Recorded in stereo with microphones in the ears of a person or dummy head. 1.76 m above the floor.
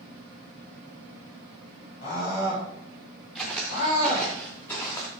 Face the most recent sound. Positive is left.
turn(degrees=15)  # may be behind; listen again after turning